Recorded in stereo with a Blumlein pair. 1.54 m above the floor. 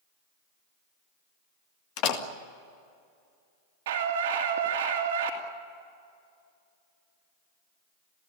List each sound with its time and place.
2.0 s a door slam: 40° left, 1.9 m
3.9 s a scream: 60° right, 2 m